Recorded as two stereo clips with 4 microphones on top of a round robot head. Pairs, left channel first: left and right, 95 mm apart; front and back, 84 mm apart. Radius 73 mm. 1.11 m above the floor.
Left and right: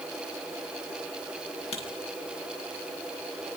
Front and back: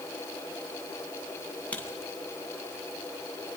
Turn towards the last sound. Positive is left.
turn(degrees=75)